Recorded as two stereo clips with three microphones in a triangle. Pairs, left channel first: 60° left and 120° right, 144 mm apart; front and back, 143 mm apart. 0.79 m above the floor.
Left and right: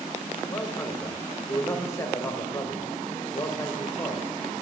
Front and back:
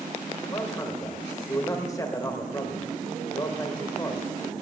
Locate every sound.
0.5 s a man speaking: 25° left, 1.0 m